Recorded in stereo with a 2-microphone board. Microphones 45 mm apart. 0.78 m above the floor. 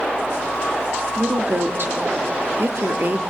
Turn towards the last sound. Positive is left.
turn(degrees=-55)  # may be behind; listen again after turning